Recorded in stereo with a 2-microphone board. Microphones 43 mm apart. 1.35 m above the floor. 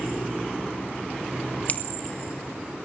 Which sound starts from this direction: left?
A finger snap, at 1.7 s.